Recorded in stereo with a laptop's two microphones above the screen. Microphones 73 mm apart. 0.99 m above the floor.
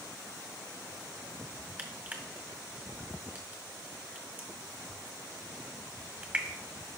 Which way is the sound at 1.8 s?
25° right (ahead or behind).